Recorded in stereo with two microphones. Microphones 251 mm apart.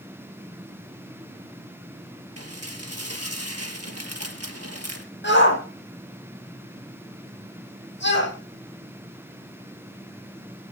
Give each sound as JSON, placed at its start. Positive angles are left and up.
{"t": 2.4, "sound": "dishes clattering", "side_deg": -75, "distance_m": 3.5}
{"t": 5.2, "sound": "a shout", "side_deg": 45, "distance_m": 8.0}